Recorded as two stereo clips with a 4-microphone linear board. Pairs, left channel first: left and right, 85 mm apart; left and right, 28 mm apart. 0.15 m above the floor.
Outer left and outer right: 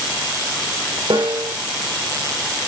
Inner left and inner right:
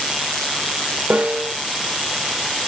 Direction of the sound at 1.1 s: 80° right.